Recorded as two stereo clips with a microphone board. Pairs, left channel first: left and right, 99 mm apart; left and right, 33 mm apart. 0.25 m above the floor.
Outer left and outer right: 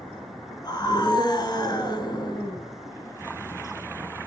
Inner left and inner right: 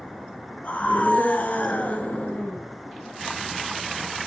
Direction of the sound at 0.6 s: 45° left (ahead or behind).